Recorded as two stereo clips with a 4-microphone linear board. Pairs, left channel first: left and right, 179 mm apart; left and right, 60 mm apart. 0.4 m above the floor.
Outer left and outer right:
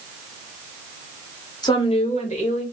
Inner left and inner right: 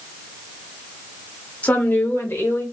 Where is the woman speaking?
25° left (ahead or behind), 0.9 m; by 2.6 s 40° left (ahead or behind), 1.3 m.